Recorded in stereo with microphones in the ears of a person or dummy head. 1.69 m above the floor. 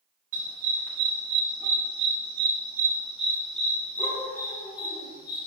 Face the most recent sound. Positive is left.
turn(degrees=30)  # may be behind; listen again after turning